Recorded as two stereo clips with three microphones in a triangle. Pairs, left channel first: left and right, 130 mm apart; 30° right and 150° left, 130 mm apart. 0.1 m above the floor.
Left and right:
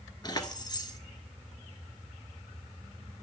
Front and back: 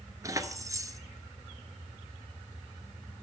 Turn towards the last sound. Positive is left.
turn(degrees=110)